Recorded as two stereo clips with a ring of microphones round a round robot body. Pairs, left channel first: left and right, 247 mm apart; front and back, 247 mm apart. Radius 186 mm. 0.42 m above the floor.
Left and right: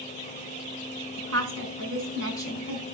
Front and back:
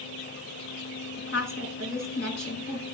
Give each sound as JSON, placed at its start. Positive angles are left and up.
{"t": 1.2, "sound": "a woman speaking", "azimuth_deg": -65, "distance_m": 5.5}